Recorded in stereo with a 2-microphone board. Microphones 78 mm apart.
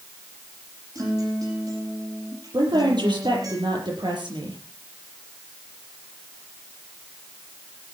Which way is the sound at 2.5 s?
75° right (ahead or behind).